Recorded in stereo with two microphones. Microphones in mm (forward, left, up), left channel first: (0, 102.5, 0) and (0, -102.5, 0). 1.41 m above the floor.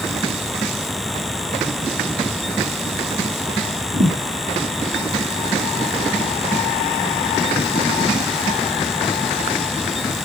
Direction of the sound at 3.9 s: 65° right (ahead or behind).